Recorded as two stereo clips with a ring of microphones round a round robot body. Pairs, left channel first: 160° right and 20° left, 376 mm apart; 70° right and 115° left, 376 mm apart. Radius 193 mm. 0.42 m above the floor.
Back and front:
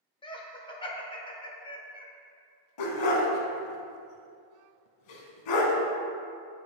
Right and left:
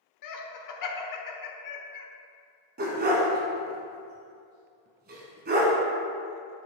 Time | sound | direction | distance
0.2 | laughter | 85° right | 1.1 m
2.8 | a dog barking | straight behind | 1.1 m